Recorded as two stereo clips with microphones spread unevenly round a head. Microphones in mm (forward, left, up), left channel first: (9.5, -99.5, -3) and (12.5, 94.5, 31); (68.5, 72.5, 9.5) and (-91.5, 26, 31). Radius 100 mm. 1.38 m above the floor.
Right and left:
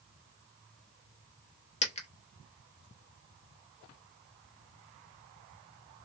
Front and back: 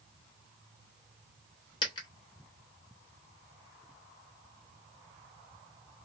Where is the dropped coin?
45° right, 0.8 m.